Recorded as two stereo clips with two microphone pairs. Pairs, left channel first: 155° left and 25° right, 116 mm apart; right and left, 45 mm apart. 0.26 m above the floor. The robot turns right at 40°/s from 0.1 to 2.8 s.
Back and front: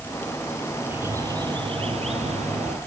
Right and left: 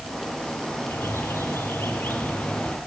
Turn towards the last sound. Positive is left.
turn(degrees=-25)